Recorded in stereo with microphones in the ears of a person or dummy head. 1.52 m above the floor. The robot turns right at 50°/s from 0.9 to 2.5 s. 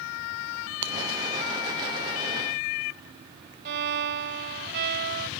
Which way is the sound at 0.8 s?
65° right (ahead or behind).